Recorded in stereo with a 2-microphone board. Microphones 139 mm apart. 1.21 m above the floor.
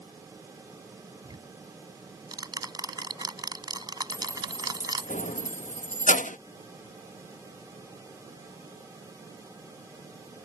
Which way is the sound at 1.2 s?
30° right (ahead or behind).